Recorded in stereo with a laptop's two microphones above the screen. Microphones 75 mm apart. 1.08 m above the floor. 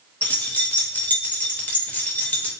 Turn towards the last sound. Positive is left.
turn(degrees=20)  # may be behind; listen again after turning